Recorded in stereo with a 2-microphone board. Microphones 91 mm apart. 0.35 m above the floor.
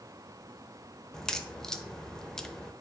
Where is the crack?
5° left (ahead or behind), 0.5 m.